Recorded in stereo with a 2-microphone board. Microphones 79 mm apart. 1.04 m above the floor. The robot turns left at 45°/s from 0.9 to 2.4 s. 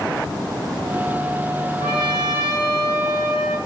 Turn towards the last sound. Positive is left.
turn(degrees=35)  # may be behind; listen again after turning